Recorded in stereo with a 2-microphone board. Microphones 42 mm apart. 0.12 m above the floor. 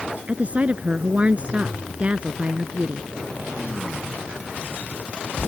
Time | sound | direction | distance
0.3 | a woman speaking | 30° right (ahead or behind) | ?